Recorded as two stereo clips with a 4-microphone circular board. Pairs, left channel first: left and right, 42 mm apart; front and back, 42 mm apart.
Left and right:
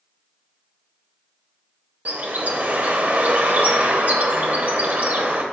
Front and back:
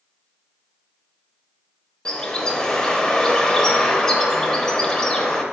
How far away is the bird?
About 0.9 m.